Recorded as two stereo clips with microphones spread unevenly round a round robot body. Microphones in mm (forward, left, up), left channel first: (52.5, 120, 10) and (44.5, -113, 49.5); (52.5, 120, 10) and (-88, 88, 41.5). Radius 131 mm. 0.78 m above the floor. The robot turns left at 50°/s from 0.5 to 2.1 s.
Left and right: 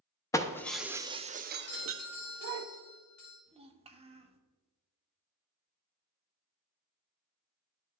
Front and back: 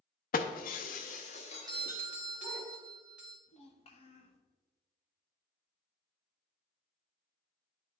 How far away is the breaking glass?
About 0.6 m.